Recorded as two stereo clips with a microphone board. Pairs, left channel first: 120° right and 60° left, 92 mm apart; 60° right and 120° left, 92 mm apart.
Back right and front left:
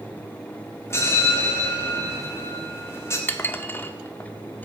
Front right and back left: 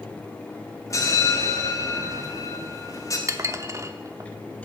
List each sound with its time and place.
0.9 s a bell: 80° right, 1.5 m
3.3 s dishes clattering: 175° left, 0.6 m